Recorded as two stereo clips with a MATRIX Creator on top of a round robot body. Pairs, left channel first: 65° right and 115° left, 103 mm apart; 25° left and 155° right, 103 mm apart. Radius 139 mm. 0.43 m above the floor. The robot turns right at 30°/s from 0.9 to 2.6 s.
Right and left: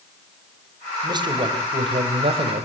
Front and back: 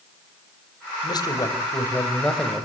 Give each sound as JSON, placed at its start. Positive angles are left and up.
{"t": 1.0, "sound": "a man speaking", "azimuth_deg": 65, "distance_m": 4.0}